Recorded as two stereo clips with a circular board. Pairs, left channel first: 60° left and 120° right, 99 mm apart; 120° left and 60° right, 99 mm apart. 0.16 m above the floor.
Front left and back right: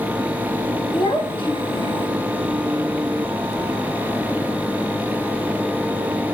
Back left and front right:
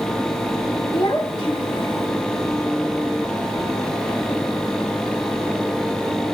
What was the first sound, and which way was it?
A child speaking, 80° left.